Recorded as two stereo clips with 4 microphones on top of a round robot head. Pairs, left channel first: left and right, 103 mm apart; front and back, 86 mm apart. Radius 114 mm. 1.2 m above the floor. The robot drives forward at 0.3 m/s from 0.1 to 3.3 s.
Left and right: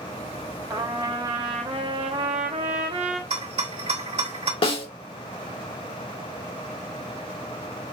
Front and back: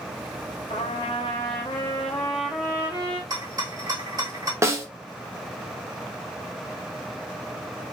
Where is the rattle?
125° right, 1.8 m.